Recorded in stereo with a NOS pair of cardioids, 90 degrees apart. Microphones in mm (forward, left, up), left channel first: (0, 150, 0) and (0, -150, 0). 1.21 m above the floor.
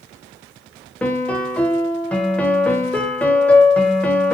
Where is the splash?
No splash in this recording.